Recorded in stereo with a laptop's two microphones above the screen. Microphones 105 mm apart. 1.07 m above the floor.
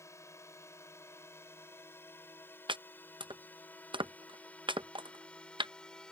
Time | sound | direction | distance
0.0 | a drone | 25° left (ahead or behind) | ?
2.7 | chopping | 50° right (ahead or behind) | ?